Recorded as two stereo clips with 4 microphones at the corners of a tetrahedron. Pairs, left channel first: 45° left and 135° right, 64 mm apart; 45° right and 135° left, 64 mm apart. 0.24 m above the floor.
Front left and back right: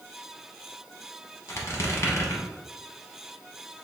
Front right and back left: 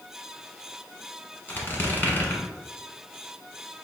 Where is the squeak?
10° left, 0.8 m.